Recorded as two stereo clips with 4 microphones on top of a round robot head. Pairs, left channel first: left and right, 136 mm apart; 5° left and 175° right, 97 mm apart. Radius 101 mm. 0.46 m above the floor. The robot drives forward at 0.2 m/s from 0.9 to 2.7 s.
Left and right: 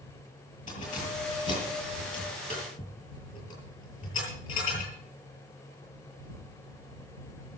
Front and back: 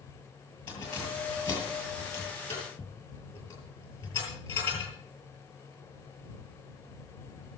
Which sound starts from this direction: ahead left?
Keys jangling, at 0.7 s.